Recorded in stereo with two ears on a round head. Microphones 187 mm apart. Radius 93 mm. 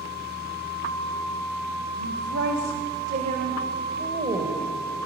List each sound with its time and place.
2.0 s a woman speaking: 65° right (ahead or behind), 2 m; by 4.6 s 15° right (ahead or behind), 3 m